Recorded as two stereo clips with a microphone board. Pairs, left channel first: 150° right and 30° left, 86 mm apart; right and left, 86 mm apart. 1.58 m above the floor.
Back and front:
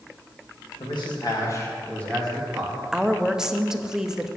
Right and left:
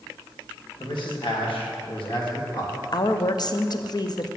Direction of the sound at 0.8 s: 125° right.